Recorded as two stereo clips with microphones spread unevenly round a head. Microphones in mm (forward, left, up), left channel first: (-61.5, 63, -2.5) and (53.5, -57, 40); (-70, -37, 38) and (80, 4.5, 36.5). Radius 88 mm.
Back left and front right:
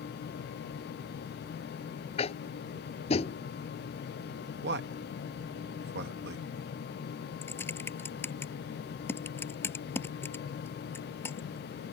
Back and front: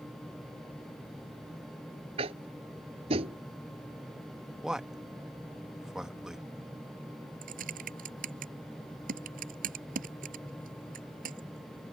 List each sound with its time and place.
2.2 s tapping: 75° left
4.6 s a man speaking: 70° right
7.4 s typing on a keyboard: 55° left